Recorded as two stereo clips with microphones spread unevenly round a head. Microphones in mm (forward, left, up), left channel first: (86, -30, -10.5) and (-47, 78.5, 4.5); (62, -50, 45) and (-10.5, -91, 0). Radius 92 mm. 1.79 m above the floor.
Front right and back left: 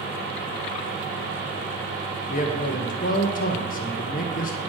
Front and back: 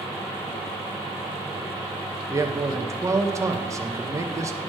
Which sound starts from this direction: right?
A man speaking, at 2.3 s.